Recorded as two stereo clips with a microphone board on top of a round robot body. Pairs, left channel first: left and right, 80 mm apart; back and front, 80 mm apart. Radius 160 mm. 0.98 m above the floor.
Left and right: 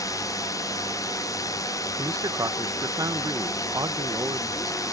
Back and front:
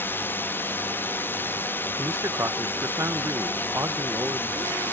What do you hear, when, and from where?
0.0 s a drone: 120° left
2.0 s a man speaking: 50° right